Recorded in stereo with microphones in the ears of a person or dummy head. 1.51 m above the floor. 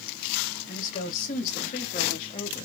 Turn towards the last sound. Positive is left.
turn(degrees=25)  # may be behind; listen again after turning